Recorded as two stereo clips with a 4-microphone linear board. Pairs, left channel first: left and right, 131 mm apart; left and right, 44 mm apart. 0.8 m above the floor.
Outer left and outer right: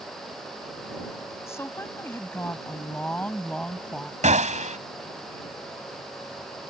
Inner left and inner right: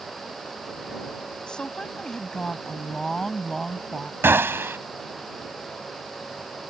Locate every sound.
1.5 s a woman speaking: 20° left (ahead or behind); by 4.1 s 5° left (ahead or behind)
4.2 s a gunshot: 80° right